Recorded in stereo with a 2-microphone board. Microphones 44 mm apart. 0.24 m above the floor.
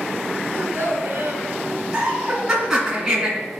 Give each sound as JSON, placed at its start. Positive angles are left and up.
{"t": 0.5, "sound": "a child speaking", "side_deg": -60, "distance_m": 1.8}
{"t": 1.9, "sound": "laughter", "side_deg": -10, "distance_m": 2.5}